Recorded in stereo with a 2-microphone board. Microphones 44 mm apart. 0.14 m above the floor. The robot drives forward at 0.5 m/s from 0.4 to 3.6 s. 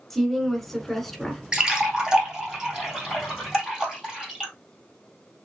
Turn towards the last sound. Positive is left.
turn(degrees=-10)  # may be behind; listen again after turning